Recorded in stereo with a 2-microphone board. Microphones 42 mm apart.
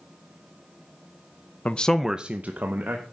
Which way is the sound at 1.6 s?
35° left (ahead or behind).